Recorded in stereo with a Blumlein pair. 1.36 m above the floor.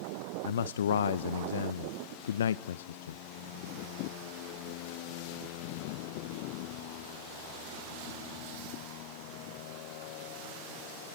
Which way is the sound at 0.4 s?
60° left.